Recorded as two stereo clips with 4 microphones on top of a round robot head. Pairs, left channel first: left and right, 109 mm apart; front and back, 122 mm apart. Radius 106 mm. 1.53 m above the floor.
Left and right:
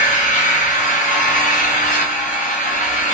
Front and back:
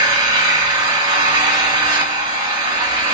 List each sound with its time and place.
0.0 s an engine running: 120° left, 1.5 m